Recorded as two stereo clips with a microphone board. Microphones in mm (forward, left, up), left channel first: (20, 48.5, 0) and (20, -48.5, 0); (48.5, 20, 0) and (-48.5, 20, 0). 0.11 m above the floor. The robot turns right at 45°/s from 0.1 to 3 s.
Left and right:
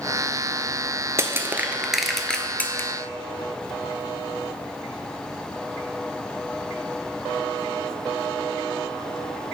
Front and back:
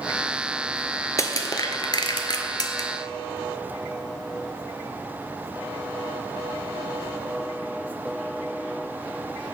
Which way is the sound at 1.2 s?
40° right.